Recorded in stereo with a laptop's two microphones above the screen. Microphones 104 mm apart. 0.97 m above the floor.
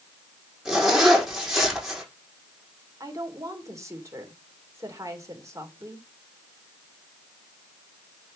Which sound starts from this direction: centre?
A zipper, at 0.7 s.